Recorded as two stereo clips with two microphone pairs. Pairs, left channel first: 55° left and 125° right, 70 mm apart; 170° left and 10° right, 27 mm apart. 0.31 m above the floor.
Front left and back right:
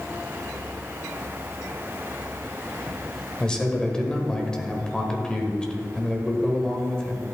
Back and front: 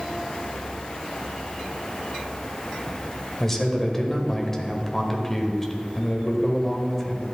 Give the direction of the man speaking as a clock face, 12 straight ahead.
8 o'clock.